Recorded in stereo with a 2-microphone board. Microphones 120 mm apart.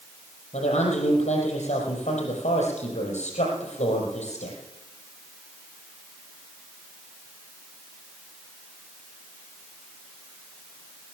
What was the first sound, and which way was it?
A woman speaking, 70° left (ahead or behind).